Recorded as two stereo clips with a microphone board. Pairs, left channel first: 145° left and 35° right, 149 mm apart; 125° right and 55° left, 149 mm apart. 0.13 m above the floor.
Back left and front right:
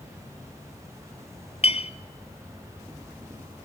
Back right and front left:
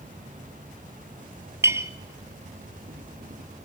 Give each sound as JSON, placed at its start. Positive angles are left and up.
{"t": 0.0, "sound": "an insect", "azimuth_deg": 35, "distance_m": 4.0}
{"t": 1.6, "sound": "a clink", "azimuth_deg": 120, "distance_m": 1.3}